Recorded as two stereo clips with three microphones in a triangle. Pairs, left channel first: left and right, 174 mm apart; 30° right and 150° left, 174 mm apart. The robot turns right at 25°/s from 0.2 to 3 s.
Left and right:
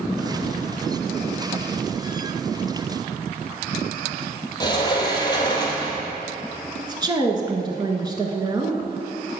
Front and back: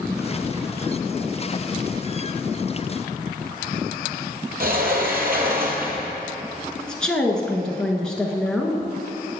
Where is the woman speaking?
110° right, 1.1 m.